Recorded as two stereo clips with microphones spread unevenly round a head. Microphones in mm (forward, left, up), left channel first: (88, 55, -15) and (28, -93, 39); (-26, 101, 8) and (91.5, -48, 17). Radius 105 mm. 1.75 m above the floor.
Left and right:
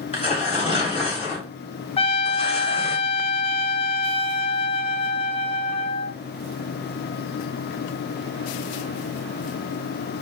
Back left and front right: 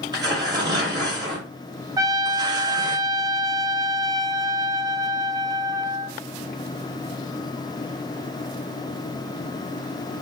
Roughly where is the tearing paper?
Ahead.